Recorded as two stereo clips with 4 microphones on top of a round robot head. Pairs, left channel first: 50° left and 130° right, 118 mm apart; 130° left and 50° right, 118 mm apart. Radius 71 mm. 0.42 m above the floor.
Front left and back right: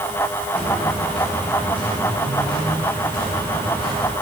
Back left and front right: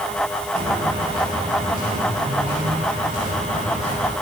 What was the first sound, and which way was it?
Footsteps, 35° right.